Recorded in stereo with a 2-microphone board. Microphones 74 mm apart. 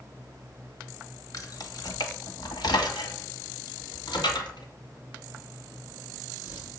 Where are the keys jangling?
50° left (ahead or behind), 1.0 m; by 6.7 s 75° left (ahead or behind), 3.5 m.